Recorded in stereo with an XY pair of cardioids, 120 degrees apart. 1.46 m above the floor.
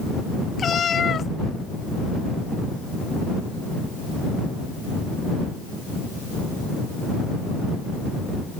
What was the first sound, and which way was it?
A cat meowing, 40° left.